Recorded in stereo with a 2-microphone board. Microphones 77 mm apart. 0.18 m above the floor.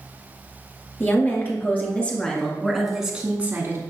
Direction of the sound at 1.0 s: 30° left (ahead or behind).